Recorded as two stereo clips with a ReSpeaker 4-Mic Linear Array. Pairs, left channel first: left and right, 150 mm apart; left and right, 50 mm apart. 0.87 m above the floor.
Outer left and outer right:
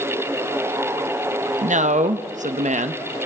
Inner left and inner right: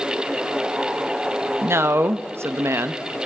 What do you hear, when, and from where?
1.6 s a man speaking: 55° right (ahead or behind), 0.6 m